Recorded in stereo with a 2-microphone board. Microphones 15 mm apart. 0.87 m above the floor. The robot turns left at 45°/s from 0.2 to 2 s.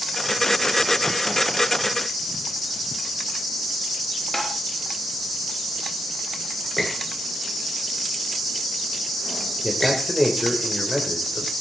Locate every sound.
4.3 s tapping: 20° left (ahead or behind), 4 m
6.8 s a squeak: 10° left (ahead or behind), 10 m
9.6 s a man speaking: centre (ahead or behind), 3 m